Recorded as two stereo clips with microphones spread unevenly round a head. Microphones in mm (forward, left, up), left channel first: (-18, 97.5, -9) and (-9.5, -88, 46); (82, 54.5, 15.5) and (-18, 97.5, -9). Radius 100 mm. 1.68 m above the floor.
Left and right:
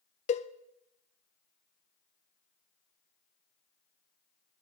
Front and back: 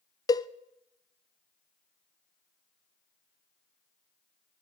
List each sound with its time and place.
0.3 s a cowbell: 35° left, 0.5 m